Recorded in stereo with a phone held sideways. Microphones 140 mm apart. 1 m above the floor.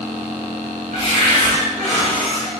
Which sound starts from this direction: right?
A cupboard door, at 0.9 s.